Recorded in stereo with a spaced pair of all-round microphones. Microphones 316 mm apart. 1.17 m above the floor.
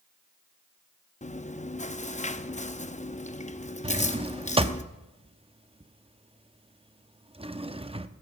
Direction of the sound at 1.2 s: 25° left (ahead or behind).